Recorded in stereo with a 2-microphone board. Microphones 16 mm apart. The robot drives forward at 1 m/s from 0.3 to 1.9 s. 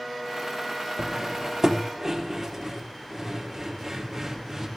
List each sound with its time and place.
1.0 s cutlery clinking: 45° right (ahead or behind), 0.8 m; by 4.7 s 20° right (ahead or behind), 1.6 m